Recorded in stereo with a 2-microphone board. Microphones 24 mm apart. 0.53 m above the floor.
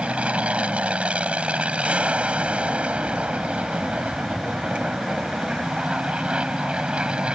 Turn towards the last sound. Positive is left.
turn(degrees=-45)  # may be behind; listen again after turning